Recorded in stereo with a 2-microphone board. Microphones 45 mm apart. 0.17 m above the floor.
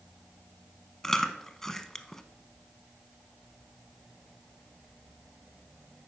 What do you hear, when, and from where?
1.0 s chewing: 10° left (ahead or behind), 0.6 m